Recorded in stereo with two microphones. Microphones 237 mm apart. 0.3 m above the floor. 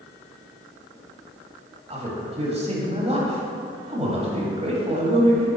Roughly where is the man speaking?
Right.